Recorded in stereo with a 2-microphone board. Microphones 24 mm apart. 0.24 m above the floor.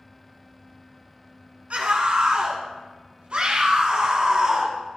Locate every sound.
1.7 s a scream: 60° right (ahead or behind), 2.5 m; by 4.8 s 40° right (ahead or behind), 2.5 m